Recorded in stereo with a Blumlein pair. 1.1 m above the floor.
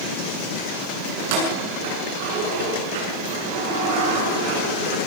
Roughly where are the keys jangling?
Ahead right.